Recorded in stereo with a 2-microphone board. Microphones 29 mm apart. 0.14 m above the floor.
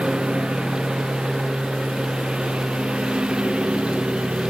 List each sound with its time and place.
0.0 s a lawn mower: 40° right (ahead or behind)